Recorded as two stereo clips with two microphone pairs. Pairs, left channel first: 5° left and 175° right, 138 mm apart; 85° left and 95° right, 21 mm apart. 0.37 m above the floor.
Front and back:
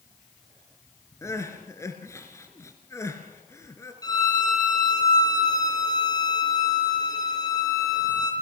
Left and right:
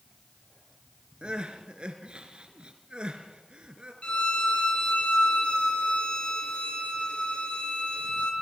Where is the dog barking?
No dog barking in this recording.